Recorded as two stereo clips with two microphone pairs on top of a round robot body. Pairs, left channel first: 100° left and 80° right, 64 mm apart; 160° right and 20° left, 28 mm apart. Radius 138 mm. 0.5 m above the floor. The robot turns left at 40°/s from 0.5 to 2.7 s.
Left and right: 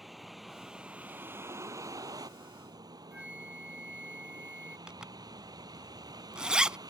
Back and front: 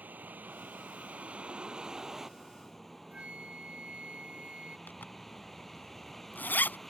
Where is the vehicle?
10° left; by 6.9 s 80° right.